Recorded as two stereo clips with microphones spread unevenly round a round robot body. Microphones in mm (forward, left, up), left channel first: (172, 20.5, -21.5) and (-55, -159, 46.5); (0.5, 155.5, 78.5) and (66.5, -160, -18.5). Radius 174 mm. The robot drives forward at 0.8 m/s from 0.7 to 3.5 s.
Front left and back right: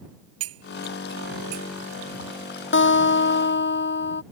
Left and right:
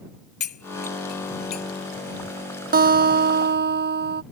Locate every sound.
0.4 s cutlery clinking: 165° left; by 1.7 s 170° left
2.7 s a guitar: 15° right